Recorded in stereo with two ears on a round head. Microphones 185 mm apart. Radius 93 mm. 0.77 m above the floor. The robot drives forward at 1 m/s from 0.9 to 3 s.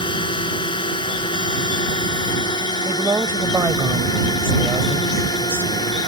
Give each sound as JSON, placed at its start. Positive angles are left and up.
{"t": 0.0, "sound": "a drone", "side_deg": 25}
{"t": 2.9, "sound": "a woman speaking", "side_deg": -10}